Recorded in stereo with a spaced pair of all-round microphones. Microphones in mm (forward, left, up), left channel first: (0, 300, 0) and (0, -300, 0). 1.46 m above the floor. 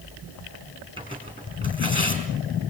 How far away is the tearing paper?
About 5.5 m.